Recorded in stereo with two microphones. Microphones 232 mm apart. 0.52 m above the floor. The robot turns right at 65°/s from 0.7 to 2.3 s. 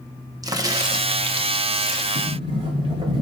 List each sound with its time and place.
0.4 s a crack: 15° right (ahead or behind), 0.7 m
2.1 s a sliding door: 35° right (ahead or behind), 1.6 m; by 3.2 s 25° right (ahead or behind), 1.6 m